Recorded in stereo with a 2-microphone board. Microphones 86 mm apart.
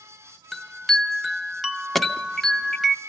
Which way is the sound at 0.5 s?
Centre (ahead or behind).